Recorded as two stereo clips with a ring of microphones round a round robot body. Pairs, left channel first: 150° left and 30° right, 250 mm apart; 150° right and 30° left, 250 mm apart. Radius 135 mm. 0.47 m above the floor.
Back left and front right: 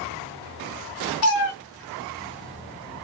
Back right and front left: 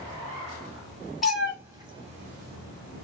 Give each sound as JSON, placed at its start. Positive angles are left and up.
{"t": 1.2, "sound": "a cat meowing", "azimuth_deg": 120, "distance_m": 1.1}